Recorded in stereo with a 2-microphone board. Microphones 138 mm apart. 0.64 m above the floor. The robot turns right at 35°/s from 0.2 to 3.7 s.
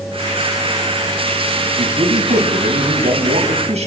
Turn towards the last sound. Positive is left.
turn(degrees=-55)